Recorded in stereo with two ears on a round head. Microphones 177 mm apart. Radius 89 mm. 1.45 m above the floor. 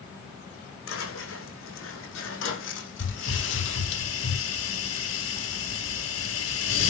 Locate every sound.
0.9 s footsteps: 75° left (ahead or behind), 6 m; by 4.0 s 65° left (ahead or behind), 3.5 m
3.0 s a hiss: 75° left (ahead or behind), 8.5 m